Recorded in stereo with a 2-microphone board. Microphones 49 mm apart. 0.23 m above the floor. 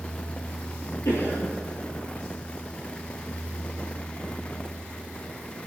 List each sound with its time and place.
1.1 s a cough: 65° left (ahead or behind), 5.5 m